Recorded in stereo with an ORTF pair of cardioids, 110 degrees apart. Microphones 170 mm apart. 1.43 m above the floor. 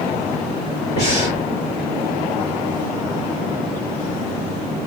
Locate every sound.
1.0 s breathing: 40° left, 1.7 m